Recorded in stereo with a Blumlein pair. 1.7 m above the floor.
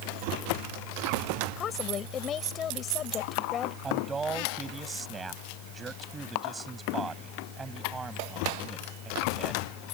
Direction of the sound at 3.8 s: 15° right.